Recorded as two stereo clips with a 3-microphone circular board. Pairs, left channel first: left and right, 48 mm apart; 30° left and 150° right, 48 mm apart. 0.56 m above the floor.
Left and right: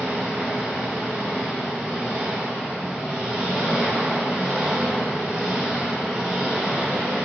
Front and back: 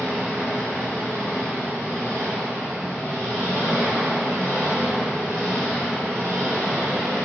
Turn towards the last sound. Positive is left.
turn(degrees=-165)